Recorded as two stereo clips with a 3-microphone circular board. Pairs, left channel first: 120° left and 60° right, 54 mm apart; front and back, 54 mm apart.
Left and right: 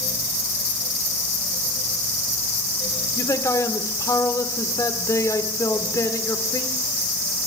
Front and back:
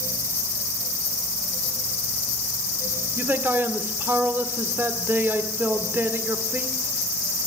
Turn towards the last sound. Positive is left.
turn(degrees=130)